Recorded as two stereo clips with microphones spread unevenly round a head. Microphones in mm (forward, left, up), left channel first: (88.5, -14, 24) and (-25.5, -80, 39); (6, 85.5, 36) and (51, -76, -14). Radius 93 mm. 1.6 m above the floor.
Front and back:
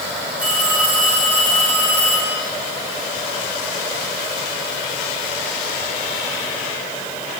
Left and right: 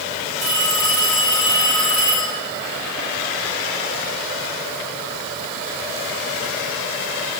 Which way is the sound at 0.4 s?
70° right.